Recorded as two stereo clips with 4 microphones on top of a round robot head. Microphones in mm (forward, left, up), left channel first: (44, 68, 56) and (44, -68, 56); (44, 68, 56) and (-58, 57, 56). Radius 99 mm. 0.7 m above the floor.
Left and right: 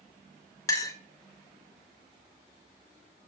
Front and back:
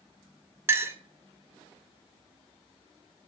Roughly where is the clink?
Behind left.